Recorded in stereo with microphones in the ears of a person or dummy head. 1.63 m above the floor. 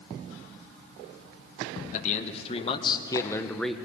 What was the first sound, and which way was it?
A man speaking, 40° left (ahead or behind).